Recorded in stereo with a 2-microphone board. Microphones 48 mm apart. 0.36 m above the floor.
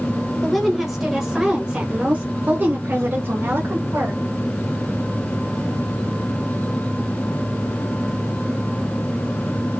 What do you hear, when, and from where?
0.4 s a woman speaking: centre (ahead or behind), 1.6 m; by 4.2 s 50° right (ahead or behind), 1.9 m